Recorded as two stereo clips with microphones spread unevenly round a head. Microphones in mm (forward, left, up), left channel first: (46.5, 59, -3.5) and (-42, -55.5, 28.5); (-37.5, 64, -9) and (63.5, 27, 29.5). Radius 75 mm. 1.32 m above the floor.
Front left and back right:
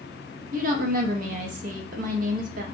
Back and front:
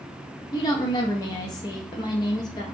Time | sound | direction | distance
0.5 | a woman speaking | 165° right | 0.7 m